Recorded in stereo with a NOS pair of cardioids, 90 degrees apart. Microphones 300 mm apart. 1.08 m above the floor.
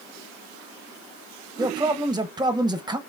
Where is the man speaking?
15° right, 0.7 m.